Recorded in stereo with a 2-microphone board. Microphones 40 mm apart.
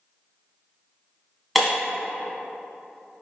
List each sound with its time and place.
1.6 s breaking glass: centre (ahead or behind), 1.4 m